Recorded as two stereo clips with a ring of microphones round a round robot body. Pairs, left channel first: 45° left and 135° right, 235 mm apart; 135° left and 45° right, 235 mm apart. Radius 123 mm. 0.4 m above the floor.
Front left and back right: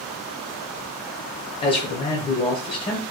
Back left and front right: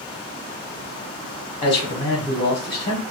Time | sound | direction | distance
1.6 | a man speaking | 90° left | 1.2 m